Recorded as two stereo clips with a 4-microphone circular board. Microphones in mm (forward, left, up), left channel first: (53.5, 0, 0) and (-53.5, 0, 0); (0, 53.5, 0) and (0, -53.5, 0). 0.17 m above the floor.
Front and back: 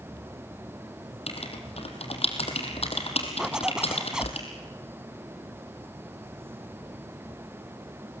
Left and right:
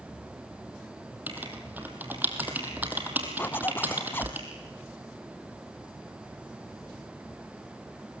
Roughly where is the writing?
Ahead.